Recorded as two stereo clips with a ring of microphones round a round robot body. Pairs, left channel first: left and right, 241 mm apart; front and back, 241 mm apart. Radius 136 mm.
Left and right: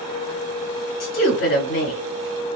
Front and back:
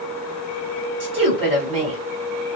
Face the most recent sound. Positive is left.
turn(degrees=115)